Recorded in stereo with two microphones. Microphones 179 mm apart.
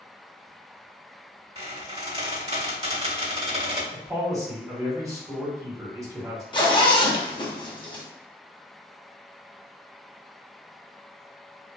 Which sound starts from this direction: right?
A squeak, at 1.6 s.